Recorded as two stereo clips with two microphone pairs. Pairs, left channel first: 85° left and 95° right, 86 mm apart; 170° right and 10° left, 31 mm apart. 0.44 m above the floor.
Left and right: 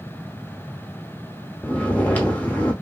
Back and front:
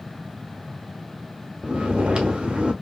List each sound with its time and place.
1.6 s snoring: 25° left, 0.8 m